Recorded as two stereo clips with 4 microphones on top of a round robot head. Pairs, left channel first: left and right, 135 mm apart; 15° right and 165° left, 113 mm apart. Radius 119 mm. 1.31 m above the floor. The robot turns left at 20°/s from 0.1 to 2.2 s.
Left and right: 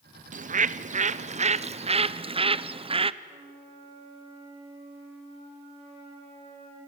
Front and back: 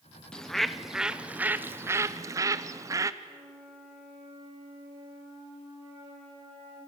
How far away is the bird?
About 0.8 m.